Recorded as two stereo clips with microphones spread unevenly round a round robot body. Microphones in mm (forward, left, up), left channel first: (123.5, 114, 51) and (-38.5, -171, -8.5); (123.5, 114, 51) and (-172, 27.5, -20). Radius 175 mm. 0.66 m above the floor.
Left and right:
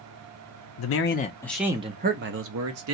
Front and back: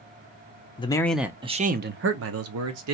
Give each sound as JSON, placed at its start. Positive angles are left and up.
{"t": 0.8, "sound": "a man speaking", "azimuth_deg": 100, "distance_m": 0.6}